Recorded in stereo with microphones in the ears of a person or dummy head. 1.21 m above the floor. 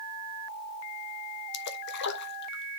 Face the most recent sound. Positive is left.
turn(degrees=65)  # may be behind; listen again after turning